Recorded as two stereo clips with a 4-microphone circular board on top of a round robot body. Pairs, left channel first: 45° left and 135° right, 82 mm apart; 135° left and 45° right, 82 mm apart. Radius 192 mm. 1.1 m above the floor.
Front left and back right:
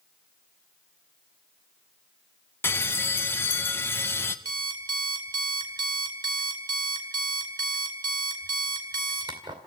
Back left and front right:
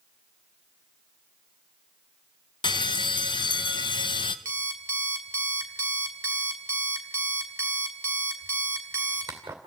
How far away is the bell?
About 0.8 m.